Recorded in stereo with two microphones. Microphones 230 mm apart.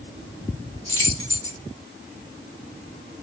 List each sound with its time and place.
0.9 s keys jangling: 15° left (ahead or behind), 0.9 m